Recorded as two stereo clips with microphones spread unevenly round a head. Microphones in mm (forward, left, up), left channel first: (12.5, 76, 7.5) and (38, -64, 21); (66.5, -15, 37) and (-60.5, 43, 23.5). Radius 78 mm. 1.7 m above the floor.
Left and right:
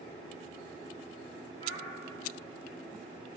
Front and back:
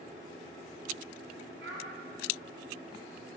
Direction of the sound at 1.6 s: 160° left.